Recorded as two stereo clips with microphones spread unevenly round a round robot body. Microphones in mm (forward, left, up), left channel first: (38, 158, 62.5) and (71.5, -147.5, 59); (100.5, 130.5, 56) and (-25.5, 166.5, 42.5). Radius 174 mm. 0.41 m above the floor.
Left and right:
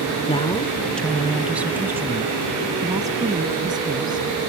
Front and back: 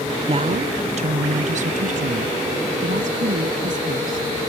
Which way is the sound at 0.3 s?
160° left.